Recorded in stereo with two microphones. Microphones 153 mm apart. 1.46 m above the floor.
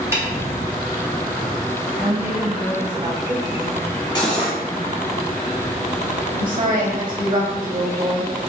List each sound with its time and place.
0.1 s a snare drum: 15° right (ahead or behind), 0.8 m
2.0 s a woman speaking: 35° right (ahead or behind), 1.3 m
4.2 s cutlery clinking: 30° left (ahead or behind), 1.0 m
6.4 s a woman speaking: 55° right (ahead or behind), 0.7 m